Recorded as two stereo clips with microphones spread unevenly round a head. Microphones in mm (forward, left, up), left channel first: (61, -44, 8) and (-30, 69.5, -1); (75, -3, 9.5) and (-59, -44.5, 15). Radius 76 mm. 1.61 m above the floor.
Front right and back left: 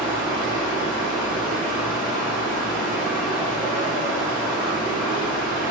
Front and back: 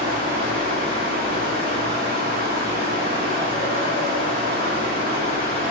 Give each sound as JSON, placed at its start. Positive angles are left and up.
{"t": 0.0, "sound": "a fan", "azimuth_deg": -145, "distance_m": 2.5}